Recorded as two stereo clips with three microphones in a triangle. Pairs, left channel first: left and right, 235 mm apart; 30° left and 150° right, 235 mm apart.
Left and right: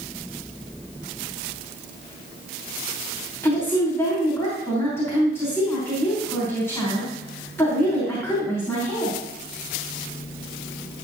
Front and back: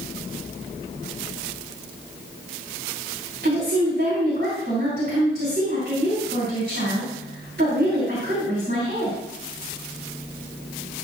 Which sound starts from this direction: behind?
A woman speaking, at 3.4 s.